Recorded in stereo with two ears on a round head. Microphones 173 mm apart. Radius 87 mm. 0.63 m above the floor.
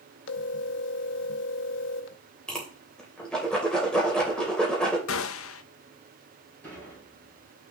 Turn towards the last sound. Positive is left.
turn(degrees=10)  # may be behind; listen again after turning